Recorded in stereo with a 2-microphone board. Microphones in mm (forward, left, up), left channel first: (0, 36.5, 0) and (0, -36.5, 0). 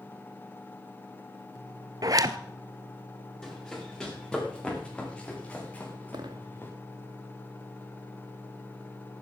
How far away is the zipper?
About 0.8 m.